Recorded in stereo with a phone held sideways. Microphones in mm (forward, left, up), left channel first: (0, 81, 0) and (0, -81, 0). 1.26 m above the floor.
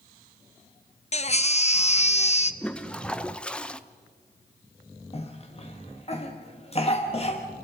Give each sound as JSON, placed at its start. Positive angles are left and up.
{"t": 1.1, "sound": "a baby crying", "side_deg": 40, "distance_m": 0.8}
{"t": 2.6, "sound": "a toilet flushing", "side_deg": 5, "distance_m": 0.8}
{"t": 5.1, "sound": "a cough", "side_deg": 40, "distance_m": 1.5}